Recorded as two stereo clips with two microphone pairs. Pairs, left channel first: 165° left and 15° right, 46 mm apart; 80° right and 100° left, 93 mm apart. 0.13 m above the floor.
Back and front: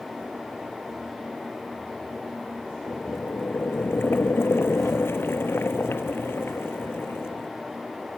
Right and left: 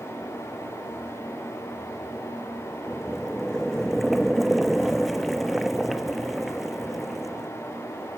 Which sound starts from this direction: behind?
Boiling, at 2.9 s.